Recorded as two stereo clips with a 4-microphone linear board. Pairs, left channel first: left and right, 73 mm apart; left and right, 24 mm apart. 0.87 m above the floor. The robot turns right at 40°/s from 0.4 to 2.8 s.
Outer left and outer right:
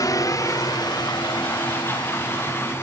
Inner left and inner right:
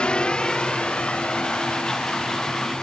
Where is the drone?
55° left (ahead or behind); by 2.8 s 45° left (ahead or behind).